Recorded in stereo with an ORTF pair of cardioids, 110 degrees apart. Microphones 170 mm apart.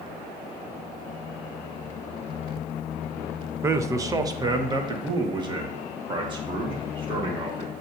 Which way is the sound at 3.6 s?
15° right.